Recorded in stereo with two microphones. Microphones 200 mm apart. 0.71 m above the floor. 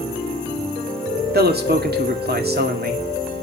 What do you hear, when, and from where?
1.3 s a man speaking: 50° right (ahead or behind), 2.0 m